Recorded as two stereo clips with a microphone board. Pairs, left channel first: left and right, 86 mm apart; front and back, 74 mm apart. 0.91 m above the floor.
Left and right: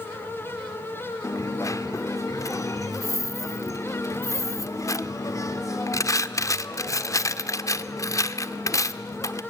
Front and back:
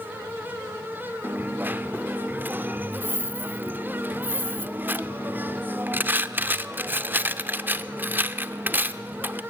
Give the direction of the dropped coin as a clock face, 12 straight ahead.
8 o'clock.